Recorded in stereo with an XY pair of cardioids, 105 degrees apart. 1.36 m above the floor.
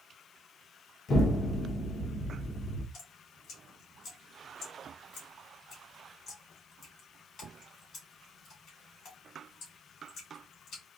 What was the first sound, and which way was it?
An explosion, 55° left.